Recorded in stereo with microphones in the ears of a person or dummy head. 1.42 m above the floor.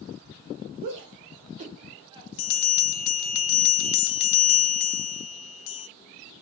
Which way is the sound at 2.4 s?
65° left (ahead or behind).